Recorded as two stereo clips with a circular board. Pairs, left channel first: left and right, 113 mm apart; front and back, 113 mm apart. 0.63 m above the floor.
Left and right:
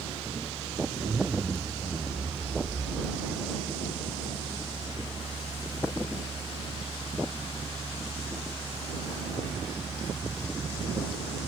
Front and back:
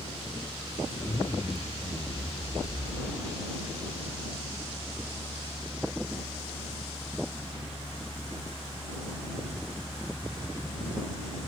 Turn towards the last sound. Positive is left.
turn(degrees=-25)